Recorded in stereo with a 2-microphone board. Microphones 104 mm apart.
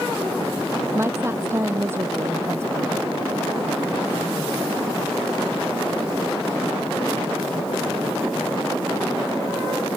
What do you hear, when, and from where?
0.9 s a woman speaking: 25° right (ahead or behind)